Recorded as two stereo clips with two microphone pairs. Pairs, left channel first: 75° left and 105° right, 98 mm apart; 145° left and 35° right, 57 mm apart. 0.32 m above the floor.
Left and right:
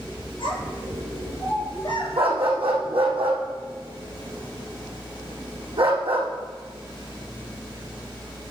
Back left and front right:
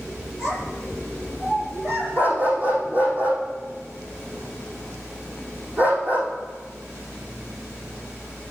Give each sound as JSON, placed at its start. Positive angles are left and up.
{"t": 0.4, "sound": "a child speaking", "azimuth_deg": 40, "distance_m": 4.0}
{"t": 2.2, "sound": "a dog barking", "azimuth_deg": -95, "distance_m": 3.5}